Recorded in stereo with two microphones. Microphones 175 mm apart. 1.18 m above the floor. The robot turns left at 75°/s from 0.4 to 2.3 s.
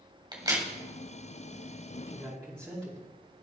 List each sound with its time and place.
0.3 s a crack: 25° right (ahead or behind), 2.5 m; by 0.7 s 5° right (ahead or behind), 2.5 m
2.1 s a man speaking: 10° right (ahead or behind), 2.5 m; by 3.0 s 5° left (ahead or behind), 2.5 m